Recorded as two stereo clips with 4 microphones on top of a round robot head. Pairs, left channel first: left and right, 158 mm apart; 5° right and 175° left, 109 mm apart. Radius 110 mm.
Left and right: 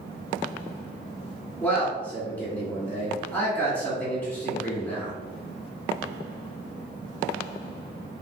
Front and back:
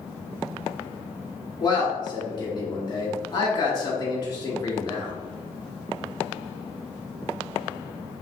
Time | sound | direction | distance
1.6 | a man speaking | 15° left | 1.6 m